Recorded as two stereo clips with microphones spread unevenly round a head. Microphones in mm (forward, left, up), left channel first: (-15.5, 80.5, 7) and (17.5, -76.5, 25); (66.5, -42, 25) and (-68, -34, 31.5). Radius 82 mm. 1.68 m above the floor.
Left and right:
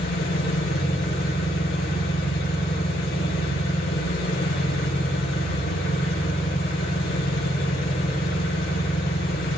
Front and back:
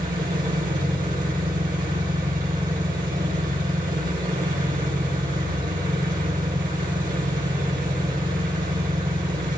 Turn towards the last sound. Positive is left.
turn(degrees=135)